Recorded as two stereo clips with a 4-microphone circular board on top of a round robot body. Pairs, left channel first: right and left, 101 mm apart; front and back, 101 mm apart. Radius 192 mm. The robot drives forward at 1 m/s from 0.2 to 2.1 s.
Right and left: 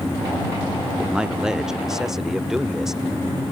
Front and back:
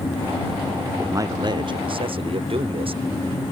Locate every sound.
1.0 s a man speaking: 160° left; by 3.0 s 175° left